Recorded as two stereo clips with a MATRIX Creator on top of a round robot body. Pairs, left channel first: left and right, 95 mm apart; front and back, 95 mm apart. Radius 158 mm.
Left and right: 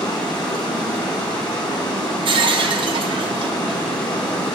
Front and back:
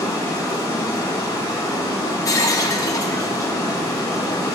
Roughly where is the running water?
Ahead left.